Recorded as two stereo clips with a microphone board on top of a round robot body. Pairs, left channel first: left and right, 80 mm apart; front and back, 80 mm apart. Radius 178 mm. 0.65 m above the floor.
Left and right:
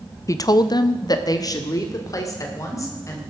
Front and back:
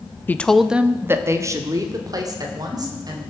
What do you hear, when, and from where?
0.3 s a woman speaking: 60° left, 0.9 m; by 3.2 s 140° left, 3.5 m